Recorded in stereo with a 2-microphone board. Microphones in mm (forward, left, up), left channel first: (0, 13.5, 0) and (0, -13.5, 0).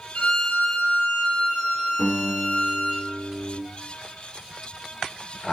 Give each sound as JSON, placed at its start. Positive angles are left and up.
{"t": 0.1, "sound": "a violin", "side_deg": 45, "distance_m": 0.7}
{"t": 2.0, "sound": "a guitar", "side_deg": -25, "distance_m": 1.6}